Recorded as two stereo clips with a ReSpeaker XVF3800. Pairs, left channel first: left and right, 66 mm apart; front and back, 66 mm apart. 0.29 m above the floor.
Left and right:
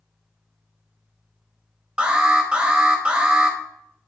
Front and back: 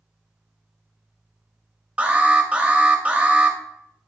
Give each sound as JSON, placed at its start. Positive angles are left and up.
{"t": 2.0, "sound": "an alarm", "azimuth_deg": -145, "distance_m": 0.7}